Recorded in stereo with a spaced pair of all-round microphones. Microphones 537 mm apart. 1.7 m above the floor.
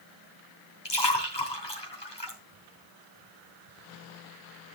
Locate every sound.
0.8 s a splash: 50° left (ahead or behind), 3 m